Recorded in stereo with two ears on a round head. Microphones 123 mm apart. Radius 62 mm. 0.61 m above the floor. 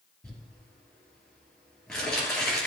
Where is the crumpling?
5° left (ahead or behind), 3 m.